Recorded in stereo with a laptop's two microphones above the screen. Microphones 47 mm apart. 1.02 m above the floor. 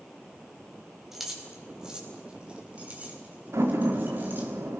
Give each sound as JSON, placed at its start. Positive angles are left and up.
{"t": 1.1, "sound": "keys jangling", "side_deg": -5, "distance_m": 4.5}
{"t": 3.5, "sound": "a door slam", "side_deg": -80, "distance_m": 1.6}